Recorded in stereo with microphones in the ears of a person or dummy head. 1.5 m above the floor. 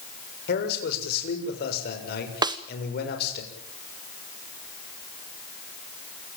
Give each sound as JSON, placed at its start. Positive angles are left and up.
{"t": 0.5, "sound": "a man speaking", "side_deg": 60, "distance_m": 7.0}
{"t": 2.4, "sound": "a snare drum", "side_deg": -20, "distance_m": 1.1}